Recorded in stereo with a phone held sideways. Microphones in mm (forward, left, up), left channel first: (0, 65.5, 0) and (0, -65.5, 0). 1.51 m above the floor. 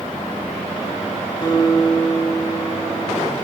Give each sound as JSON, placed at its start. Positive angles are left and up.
{"t": 1.4, "sound": "a guitar", "side_deg": 30, "distance_m": 5.5}